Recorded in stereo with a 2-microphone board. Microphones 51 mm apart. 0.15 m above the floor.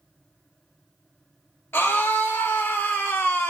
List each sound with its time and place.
1.7 s a scream: 50° left (ahead or behind), 2 m